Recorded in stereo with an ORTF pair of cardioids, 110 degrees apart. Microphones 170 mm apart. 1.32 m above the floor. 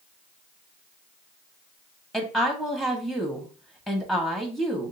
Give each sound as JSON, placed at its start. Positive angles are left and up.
{"t": 2.1, "sound": "a woman speaking", "azimuth_deg": 0, "distance_m": 1.5}